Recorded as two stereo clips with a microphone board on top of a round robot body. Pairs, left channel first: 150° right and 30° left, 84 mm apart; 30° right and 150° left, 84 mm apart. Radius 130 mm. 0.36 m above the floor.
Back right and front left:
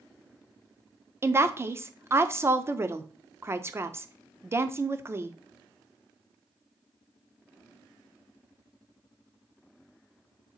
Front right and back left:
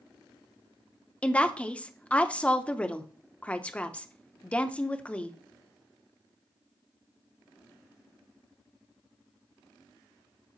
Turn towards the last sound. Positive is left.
turn(degrees=30)